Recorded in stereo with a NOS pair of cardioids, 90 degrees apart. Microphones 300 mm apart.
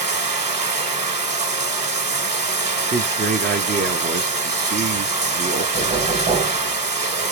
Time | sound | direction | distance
0.0 | running water | 25° right | 1.4 m
2.9 | a man speaking | 35° right | 0.8 m
5.7 | knocking | 35° right | 1.4 m